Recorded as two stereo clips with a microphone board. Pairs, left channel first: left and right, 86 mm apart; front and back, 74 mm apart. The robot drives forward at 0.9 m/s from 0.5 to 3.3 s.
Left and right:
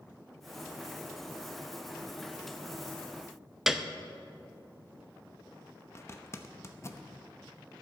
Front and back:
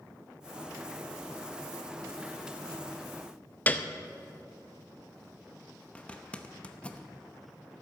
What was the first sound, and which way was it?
A piano, 10° right.